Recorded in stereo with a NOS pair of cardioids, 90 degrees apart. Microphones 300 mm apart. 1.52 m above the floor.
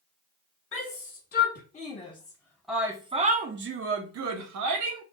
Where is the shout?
40° left, 1.6 m; by 5.0 s 80° right, 1.3 m.